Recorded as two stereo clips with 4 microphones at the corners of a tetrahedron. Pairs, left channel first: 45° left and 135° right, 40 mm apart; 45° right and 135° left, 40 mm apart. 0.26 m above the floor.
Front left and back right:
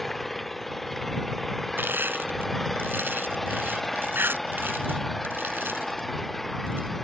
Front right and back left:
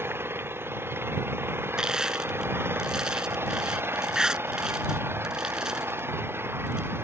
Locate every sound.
0.0 s an engine running: 130° left
1.8 s crushing: 155° right